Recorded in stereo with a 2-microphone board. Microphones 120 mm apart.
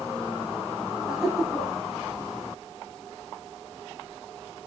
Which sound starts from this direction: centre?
Laughter, at 1.1 s.